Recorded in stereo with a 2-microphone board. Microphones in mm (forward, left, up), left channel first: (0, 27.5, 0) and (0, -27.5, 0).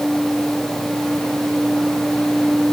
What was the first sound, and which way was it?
Only background noise.